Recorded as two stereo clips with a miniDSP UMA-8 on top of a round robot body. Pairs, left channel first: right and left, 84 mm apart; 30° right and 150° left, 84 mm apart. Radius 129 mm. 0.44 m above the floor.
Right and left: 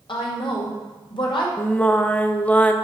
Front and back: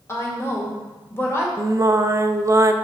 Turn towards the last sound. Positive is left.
turn(degrees=-165)